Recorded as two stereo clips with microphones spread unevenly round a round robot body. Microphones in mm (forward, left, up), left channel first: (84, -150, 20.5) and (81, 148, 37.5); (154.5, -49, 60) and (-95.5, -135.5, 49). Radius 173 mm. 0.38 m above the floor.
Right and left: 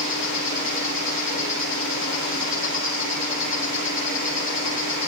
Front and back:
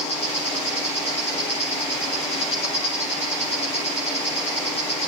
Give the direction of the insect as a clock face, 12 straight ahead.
2 o'clock.